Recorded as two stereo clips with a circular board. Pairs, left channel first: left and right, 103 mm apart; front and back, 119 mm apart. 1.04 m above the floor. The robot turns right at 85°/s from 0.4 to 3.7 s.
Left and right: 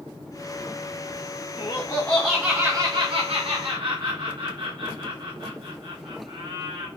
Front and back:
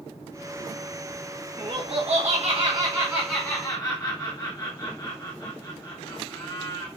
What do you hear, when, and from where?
1.6 s laughter: 125° left, 0.9 m; by 6.9 s 55° right, 0.9 m